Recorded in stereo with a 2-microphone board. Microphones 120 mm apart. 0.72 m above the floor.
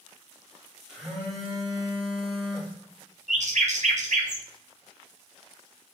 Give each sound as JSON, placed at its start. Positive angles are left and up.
{"t": 0.9, "sound": "a phone buzzing", "side_deg": -5, "distance_m": 1.0}
{"t": 3.3, "sound": "a bird", "side_deg": -70, "distance_m": 0.5}